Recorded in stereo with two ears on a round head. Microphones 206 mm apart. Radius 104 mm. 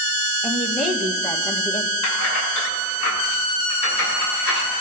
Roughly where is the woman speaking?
Centre.